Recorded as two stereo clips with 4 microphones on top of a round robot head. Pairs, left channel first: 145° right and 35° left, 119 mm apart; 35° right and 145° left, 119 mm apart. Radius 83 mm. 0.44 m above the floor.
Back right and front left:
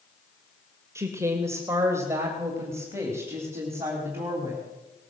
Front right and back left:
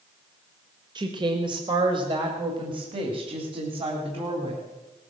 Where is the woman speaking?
100° left, 1.7 m; by 4.6 s 105° left, 3.5 m.